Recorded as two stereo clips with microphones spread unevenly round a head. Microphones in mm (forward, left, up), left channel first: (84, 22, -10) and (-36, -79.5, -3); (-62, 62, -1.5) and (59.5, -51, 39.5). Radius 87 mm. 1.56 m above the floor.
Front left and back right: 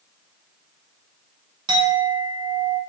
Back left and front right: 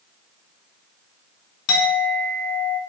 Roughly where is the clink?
Behind left.